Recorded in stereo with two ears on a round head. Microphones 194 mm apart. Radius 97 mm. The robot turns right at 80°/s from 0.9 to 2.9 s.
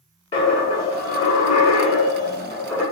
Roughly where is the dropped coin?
Ahead left.